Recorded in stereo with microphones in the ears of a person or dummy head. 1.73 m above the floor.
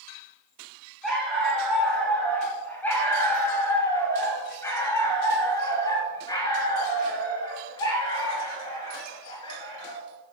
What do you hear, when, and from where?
1.0 s a dog barking: centre (ahead or behind), 6 m; by 10.0 s 30° left (ahead or behind), 10 m